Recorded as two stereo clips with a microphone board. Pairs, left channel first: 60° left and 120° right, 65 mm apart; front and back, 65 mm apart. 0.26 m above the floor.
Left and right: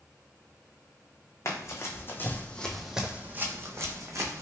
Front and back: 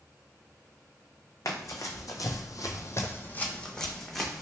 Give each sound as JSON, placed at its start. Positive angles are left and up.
{"t": 1.4, "sound": "running footsteps", "azimuth_deg": 30, "distance_m": 0.8}